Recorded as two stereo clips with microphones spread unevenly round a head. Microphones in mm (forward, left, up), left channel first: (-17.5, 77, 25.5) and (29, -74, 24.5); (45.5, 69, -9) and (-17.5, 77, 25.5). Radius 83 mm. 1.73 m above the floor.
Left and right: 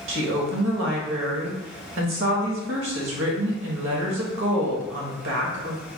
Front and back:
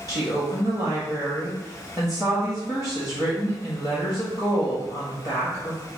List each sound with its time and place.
0.1 s a woman speaking: 75° right, 1.3 m